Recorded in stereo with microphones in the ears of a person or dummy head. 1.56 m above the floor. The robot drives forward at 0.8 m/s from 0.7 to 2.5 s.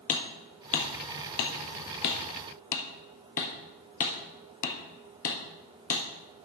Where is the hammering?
40° left (ahead or behind), 1.3 m.